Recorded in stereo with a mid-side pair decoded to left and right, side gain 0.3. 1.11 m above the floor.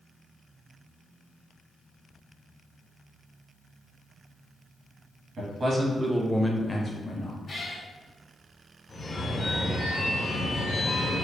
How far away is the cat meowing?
About 1.0 m.